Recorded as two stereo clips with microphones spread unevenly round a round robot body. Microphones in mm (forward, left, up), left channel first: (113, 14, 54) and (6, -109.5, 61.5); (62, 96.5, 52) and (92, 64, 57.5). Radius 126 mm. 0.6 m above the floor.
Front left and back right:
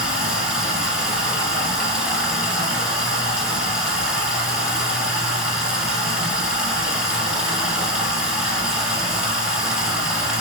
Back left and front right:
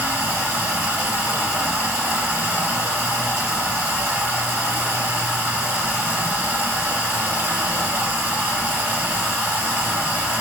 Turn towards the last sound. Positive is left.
turn(degrees=-45)